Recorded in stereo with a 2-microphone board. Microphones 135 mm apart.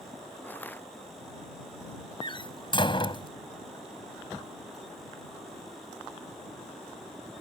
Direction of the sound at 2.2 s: 40° left (ahead or behind).